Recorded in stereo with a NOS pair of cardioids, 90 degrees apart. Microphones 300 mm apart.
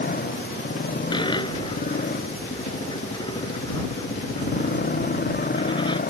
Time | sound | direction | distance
0.0 | a motorcycle | 30° left | ?
1.1 | a dropped coin | 15° left | ?